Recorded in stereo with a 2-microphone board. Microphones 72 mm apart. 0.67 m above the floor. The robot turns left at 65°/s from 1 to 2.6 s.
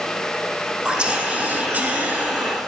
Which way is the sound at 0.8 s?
15° right (ahead or behind).